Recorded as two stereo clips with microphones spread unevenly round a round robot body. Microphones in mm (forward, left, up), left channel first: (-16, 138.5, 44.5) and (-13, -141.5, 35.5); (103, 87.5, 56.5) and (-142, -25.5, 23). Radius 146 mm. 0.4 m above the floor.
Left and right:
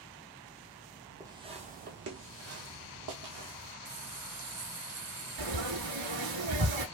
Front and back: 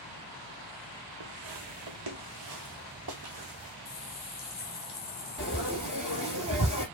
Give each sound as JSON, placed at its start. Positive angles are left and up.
{"t": 1.2, "sound": "footsteps", "azimuth_deg": -170, "distance_m": 1.0}
{"t": 3.9, "sound": "a running tap", "azimuth_deg": -30, "distance_m": 1.0}
{"t": 5.4, "sound": "frying", "azimuth_deg": -85, "distance_m": 1.5}